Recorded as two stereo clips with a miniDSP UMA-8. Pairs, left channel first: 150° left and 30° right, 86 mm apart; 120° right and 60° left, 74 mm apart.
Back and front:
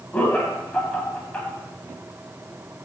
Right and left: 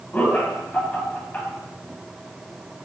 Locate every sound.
0.1 s laughter: 150° right, 1.6 m